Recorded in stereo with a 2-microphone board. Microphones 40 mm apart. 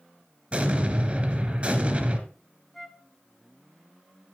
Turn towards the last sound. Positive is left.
turn(degrees=5)  # may be behind; listen again after turning